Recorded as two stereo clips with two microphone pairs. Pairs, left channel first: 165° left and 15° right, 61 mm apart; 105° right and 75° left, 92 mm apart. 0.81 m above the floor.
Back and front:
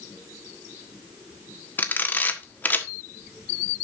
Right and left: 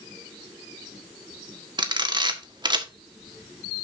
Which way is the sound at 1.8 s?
105° left.